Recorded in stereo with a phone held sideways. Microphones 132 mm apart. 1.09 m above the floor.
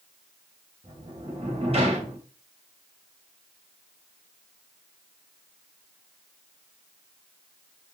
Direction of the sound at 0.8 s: 45° right (ahead or behind).